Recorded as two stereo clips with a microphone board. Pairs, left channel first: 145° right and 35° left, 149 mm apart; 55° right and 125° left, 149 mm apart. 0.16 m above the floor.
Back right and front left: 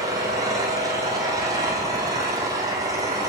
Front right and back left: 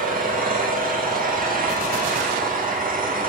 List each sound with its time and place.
0.0 s an engine running: 100° left, 8.5 m